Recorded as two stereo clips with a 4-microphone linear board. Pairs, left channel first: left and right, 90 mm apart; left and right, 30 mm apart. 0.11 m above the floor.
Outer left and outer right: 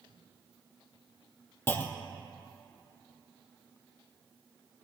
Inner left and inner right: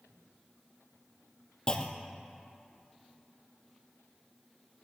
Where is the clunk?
25° left (ahead or behind), 0.7 m.